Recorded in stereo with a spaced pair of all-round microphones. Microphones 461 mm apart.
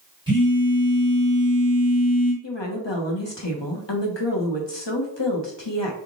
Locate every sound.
0.3 s a phone buzzing: 10° right (ahead or behind), 1.9 m
2.4 s a woman speaking: 65° left (ahead or behind), 1.1 m